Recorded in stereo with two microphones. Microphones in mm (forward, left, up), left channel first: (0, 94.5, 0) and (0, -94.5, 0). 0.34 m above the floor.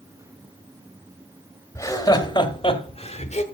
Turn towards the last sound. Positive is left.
turn(degrees=40)  # may be behind; listen again after turning